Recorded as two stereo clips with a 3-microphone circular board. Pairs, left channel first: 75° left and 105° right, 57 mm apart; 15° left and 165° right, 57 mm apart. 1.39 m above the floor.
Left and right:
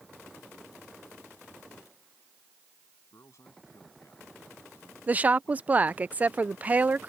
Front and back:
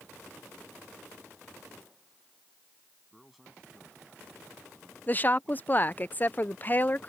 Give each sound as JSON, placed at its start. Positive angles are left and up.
{"t": 3.1, "sound": "a man speaking", "azimuth_deg": 105}
{"t": 5.1, "sound": "a woman speaking", "azimuth_deg": -40}